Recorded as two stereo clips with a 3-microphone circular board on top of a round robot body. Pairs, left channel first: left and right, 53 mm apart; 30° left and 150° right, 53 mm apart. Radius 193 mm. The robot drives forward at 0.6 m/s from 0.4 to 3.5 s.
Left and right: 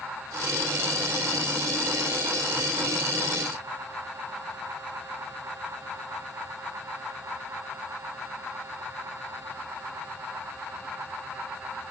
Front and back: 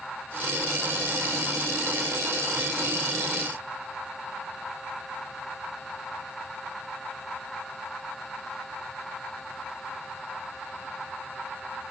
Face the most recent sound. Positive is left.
No sound to turn to.